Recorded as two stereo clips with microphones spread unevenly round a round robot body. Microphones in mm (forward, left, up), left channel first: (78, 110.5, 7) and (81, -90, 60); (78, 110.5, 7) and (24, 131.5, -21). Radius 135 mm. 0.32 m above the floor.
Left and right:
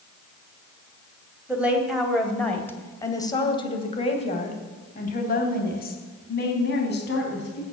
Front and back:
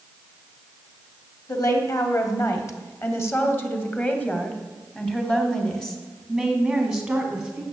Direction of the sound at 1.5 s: 5° left.